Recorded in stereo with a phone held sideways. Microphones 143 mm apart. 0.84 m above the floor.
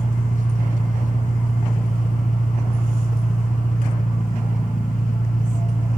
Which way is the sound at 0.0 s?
65° left (ahead or behind).